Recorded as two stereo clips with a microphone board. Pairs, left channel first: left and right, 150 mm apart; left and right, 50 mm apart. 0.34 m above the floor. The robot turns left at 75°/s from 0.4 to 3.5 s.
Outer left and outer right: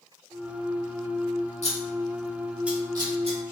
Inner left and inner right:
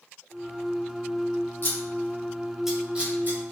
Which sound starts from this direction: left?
Scissors, at 1.6 s.